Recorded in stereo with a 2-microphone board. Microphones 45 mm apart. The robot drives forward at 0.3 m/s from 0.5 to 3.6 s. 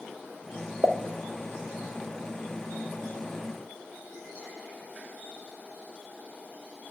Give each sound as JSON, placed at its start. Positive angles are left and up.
{"t": 0.8, "sound": "a pop", "side_deg": -70, "distance_m": 0.6}